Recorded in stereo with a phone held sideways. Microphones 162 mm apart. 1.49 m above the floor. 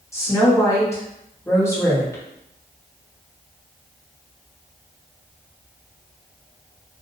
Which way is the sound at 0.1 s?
20° left (ahead or behind).